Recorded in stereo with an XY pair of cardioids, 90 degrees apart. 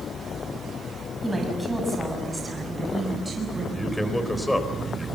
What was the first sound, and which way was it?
A woman speaking, 10° right.